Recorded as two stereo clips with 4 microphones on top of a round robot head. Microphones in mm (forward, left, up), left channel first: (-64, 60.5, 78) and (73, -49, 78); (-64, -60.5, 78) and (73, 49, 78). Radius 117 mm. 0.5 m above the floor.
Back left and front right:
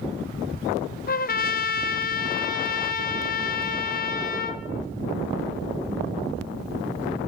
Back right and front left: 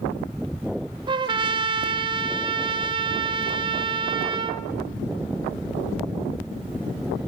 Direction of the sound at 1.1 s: 105° left.